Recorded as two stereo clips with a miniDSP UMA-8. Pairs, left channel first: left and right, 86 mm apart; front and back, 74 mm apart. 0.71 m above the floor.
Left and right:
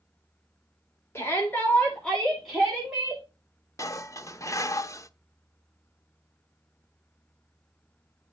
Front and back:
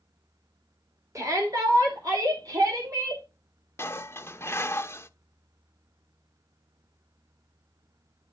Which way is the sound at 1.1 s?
145° left.